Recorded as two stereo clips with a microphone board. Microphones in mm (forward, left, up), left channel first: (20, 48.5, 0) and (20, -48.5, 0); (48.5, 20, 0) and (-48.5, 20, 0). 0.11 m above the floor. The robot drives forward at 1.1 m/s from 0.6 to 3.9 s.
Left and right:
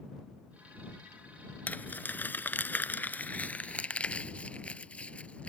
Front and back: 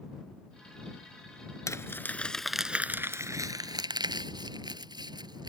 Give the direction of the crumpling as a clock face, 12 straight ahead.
11 o'clock.